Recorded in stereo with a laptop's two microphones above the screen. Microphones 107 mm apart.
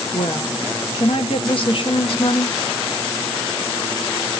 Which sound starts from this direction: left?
A woman speaking, at 0.1 s.